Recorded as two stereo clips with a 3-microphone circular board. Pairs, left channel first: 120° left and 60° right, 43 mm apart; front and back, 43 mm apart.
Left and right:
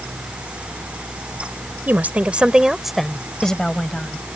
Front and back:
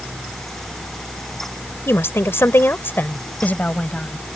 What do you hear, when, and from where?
1.9 s a woman speaking: 20° right; by 4.4 s 60° left